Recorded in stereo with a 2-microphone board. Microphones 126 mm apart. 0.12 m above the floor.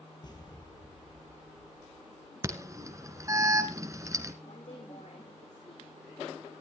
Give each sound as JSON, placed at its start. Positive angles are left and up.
{"t": 0.2, "sound": "an explosion", "side_deg": 35, "distance_m": 3.0}
{"t": 2.4, "sound": "an alarm", "side_deg": -25, "distance_m": 1.8}
{"t": 4.4, "sound": "a woman speaking", "side_deg": 75, "distance_m": 9.0}